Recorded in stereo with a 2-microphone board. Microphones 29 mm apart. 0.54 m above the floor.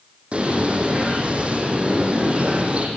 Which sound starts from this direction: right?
A bird, at 0.3 s.